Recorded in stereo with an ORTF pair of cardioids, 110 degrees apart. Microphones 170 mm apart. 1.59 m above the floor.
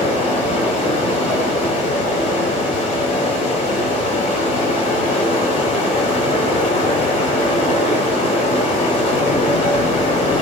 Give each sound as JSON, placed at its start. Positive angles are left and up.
{"t": 0.0, "sound": "running water", "azimuth_deg": 50, "distance_m": 4.0}